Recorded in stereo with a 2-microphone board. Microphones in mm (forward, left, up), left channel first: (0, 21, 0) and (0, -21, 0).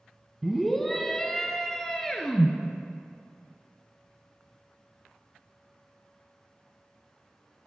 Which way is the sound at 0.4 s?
Centre (ahead or behind).